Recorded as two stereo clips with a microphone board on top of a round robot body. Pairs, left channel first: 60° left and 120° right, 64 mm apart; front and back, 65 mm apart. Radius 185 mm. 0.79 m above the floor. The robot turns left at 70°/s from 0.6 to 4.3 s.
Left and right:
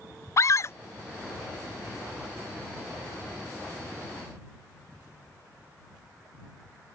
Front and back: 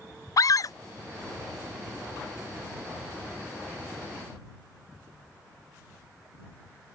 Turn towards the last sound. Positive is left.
turn(degrees=125)